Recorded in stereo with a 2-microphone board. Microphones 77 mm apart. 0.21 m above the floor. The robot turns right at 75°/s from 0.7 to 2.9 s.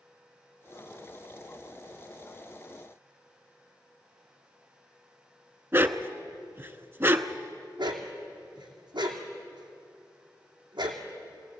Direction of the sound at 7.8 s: 85° right.